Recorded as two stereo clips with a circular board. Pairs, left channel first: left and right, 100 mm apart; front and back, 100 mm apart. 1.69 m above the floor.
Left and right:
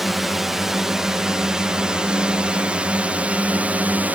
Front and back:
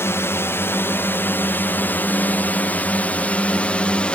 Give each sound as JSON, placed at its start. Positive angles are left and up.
{"t": 0.0, "sound": "a drone", "azimuth_deg": -5}